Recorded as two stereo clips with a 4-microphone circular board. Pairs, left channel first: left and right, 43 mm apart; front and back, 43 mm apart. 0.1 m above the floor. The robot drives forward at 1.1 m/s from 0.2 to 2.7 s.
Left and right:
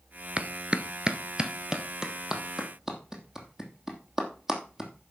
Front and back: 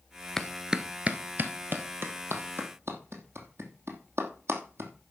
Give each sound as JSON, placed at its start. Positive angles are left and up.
{"t": 0.4, "sound": "a clap", "azimuth_deg": -75, "distance_m": 1.0}